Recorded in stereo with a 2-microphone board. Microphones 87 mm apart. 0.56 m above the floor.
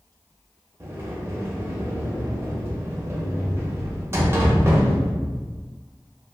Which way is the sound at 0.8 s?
30° right (ahead or behind).